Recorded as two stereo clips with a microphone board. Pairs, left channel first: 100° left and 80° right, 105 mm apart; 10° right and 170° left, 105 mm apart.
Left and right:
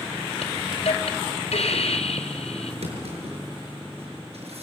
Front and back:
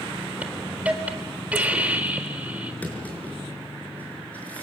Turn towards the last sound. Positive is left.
turn(degrees=-85)